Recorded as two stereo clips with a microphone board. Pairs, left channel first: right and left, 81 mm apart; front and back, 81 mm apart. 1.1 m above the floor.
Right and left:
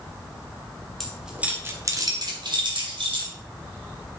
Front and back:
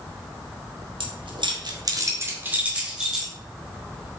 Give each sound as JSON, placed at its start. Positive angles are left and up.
{"t": 1.0, "sound": "keys jangling", "azimuth_deg": -175, "distance_m": 1.5}